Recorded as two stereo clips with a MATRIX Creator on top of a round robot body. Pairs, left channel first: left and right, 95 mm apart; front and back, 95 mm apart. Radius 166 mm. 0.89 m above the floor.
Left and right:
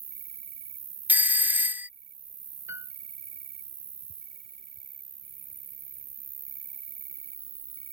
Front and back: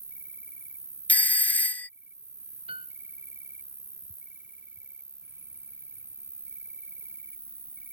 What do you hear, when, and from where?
0.0 s an insect: 110° right
1.1 s a doorbell: 45° right
2.7 s a piano: 155° right